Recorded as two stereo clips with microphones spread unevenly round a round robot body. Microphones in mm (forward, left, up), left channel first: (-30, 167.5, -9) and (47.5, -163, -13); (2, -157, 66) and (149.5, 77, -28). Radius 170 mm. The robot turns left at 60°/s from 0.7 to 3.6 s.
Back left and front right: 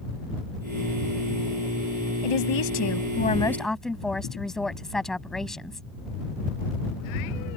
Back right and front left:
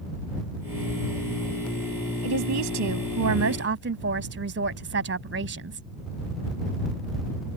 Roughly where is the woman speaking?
Left.